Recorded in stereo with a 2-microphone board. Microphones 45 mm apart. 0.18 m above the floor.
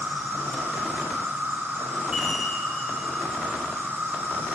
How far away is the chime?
About 4.5 m.